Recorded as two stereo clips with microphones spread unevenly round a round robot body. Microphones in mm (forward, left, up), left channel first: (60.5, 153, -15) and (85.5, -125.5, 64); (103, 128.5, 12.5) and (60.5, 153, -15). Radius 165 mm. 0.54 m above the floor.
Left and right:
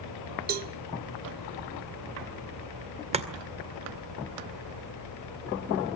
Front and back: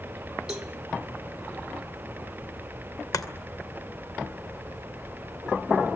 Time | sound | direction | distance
0.5 | a cowbell | 155° right | 0.7 m
3.1 | chopping | 10° right | 2 m